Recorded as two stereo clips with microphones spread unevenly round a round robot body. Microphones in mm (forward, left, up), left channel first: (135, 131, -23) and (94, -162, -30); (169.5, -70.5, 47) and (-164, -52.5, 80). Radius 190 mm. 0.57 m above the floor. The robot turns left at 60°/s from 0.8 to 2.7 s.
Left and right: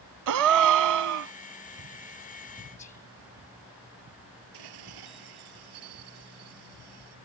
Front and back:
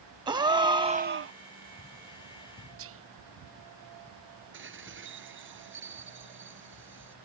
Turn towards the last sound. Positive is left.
turn(degrees=-125)